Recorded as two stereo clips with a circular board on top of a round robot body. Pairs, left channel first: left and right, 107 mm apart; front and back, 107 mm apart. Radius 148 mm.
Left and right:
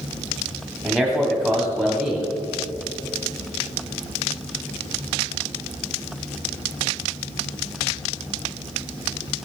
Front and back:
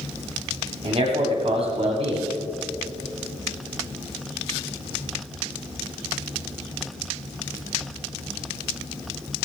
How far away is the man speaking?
About 2 m.